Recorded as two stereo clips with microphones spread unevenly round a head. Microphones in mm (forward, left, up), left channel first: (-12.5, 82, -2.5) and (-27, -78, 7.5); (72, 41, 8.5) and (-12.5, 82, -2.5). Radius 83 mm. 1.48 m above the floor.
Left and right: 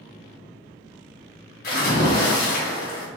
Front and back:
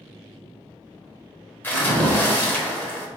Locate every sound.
1.6 s a splash: 40° left, 1.2 m